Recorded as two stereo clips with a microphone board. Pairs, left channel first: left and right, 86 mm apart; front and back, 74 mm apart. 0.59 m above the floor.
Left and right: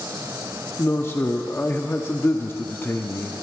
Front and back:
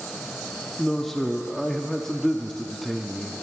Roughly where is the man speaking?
Left.